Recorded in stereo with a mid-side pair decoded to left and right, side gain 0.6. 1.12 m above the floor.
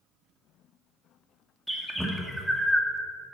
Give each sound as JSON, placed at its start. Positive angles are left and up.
{"t": 1.7, "sound": "a bird", "azimuth_deg": 0, "distance_m": 1.9}